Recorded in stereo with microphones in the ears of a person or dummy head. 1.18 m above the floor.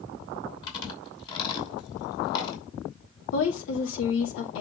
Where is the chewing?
30° left (ahead or behind), 5.5 m.